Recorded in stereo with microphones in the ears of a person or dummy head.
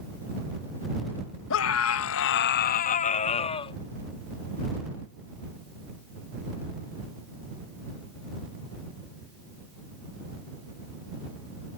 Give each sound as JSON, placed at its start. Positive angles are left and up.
{"t": 1.5, "sound": "a scream", "side_deg": 70}